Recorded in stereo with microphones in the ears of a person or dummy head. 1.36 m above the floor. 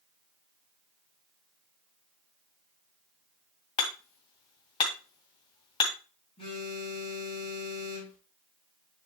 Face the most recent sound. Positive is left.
turn(degrees=35)  # may be behind; listen again after turning